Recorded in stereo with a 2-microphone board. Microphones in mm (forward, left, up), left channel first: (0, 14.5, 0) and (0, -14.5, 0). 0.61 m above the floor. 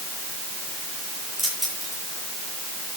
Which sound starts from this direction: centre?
Keys jangling, at 1.4 s.